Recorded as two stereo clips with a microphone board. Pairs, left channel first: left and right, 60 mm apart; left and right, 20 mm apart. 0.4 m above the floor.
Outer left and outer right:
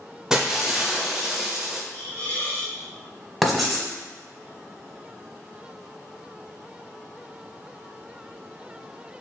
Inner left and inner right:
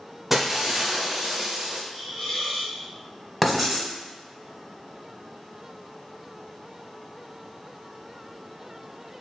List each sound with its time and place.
0.3 s breaking glass: 10° right (ahead or behind), 0.6 m
1.9 s a hiss: 35° left (ahead or behind), 1.7 m
3.4 s writing: 5° right (ahead or behind), 1.1 m